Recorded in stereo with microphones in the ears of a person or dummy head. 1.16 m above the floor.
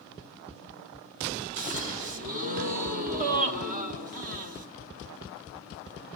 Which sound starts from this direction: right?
A gasp, at 1.6 s.